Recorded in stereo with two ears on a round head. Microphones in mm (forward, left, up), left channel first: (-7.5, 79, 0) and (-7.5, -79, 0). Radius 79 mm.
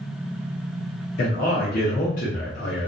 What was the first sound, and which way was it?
A man speaking, 50° left (ahead or behind).